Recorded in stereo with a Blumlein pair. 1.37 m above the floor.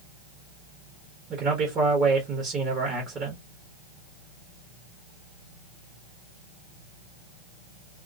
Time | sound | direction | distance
1.3 | a man speaking | 30° right | 1.0 m